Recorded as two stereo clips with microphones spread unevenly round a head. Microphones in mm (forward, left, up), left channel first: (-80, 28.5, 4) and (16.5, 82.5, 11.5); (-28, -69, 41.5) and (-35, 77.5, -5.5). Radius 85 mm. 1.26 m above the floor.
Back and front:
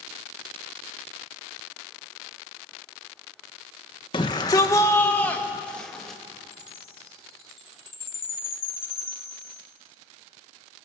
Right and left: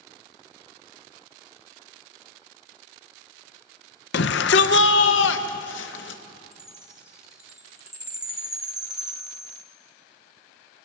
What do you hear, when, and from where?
4.1 s a shout: 90° right, 1.3 m; by 6.2 s 60° right, 2 m
6.5 s a chime: 175° left, 2.5 m